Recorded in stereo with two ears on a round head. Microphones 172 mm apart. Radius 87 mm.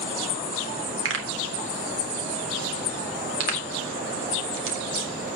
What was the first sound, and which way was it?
A pop, 75° right (ahead or behind).